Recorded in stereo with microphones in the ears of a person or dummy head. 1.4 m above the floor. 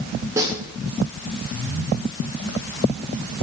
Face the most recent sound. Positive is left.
turn(degrees=-20)  # may be behind; listen again after turning